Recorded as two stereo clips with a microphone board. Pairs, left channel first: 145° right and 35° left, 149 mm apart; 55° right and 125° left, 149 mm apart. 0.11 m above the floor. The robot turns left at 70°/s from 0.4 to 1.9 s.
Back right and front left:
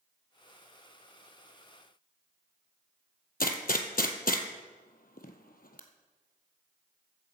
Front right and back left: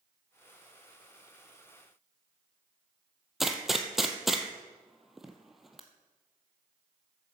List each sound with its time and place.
3.4 s a gunshot: 150° right, 1.1 m